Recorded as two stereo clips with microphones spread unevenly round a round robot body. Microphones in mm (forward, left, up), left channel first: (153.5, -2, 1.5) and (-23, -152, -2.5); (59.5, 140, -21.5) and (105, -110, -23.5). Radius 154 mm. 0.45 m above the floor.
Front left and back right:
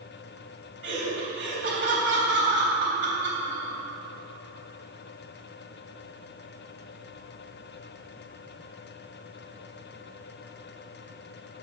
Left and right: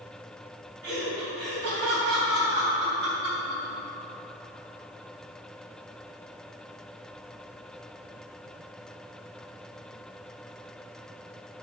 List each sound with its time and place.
0.8 s laughter: 120° right, 3 m